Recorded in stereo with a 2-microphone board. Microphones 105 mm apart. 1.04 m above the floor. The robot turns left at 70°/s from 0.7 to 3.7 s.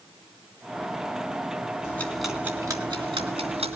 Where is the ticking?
25° left, 3 m; by 3.8 s 105° right, 3 m.